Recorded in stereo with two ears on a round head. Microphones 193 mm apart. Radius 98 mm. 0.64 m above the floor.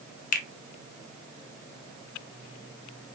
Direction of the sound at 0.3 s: 40° left (ahead or behind).